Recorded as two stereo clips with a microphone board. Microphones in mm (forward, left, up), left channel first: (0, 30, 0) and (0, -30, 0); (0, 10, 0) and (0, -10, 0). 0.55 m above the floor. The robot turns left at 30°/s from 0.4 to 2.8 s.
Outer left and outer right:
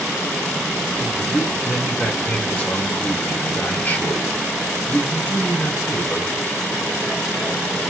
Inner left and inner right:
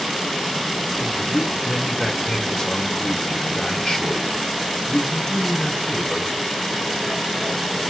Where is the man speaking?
160° right, 1.9 m; by 6.3 s 145° left, 1.9 m.